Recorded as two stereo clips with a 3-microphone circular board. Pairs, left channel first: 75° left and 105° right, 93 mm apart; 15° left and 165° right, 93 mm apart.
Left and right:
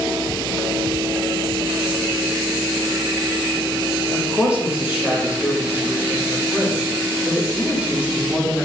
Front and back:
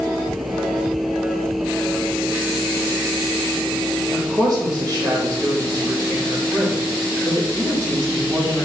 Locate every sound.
4.1 s a woman speaking: 175° right, 1.1 m